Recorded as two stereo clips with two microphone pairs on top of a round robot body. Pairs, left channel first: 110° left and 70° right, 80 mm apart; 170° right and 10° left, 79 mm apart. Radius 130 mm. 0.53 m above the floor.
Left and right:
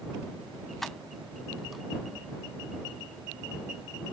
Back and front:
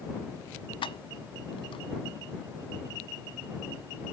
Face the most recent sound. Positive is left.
turn(degrees=-160)